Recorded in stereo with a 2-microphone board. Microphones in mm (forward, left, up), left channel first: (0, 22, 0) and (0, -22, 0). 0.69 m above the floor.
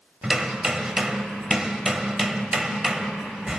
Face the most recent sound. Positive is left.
turn(degrees=-15)  # may be behind; listen again after turning